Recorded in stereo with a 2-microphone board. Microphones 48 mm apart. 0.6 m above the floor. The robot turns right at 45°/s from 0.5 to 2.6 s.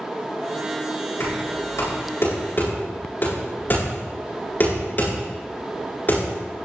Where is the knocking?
75° left (ahead or behind), 9 m; by 6.2 s 40° left (ahead or behind), 9 m.